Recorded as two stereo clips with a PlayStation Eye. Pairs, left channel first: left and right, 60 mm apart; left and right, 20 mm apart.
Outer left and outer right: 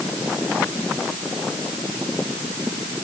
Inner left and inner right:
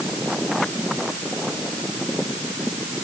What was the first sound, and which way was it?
Only background noise.